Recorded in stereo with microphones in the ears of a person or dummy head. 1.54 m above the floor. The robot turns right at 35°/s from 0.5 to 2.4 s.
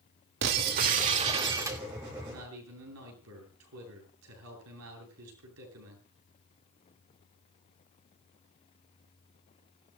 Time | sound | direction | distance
0.4 | breaking glass | 60° right | 2.0 m
2.3 | a man speaking | 85° right | 9.5 m